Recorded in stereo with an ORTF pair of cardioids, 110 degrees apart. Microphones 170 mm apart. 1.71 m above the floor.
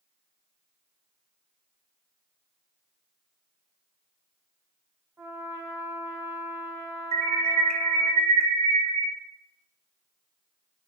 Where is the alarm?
35° right, 0.6 m.